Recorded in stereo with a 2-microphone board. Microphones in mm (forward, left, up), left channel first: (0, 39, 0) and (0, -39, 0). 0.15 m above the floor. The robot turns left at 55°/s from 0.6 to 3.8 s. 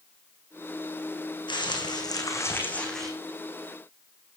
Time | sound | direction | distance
1.5 | crumpling | 90° left | 4 m